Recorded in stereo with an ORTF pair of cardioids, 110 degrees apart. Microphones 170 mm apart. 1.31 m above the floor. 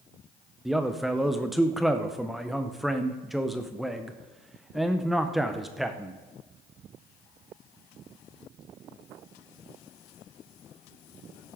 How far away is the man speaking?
About 0.6 m.